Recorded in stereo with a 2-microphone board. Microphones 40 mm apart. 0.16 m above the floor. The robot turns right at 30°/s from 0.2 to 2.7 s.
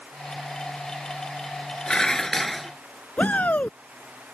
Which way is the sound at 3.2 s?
40° left (ahead or behind).